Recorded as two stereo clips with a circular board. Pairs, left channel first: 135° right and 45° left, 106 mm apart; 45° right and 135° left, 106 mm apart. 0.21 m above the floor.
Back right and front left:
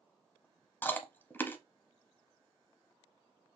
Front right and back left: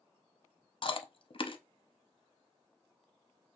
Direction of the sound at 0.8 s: 65° right.